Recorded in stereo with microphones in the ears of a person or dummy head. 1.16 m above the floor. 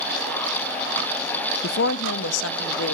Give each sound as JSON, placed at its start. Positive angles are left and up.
{"t": 1.6, "sound": "a woman speaking", "side_deg": 55, "distance_m": 0.5}